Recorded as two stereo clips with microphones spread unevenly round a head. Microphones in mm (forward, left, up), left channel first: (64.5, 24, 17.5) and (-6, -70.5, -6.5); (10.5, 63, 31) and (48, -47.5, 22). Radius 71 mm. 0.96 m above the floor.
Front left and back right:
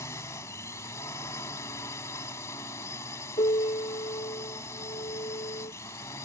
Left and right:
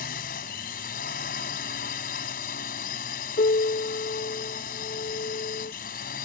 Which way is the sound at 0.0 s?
125° left.